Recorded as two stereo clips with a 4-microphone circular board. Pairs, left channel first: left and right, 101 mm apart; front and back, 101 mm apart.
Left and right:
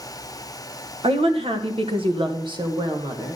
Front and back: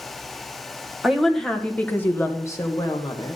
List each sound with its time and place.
1.0 s a woman speaking: 90° right, 1.4 m; by 3.4 s 40° right, 1.6 m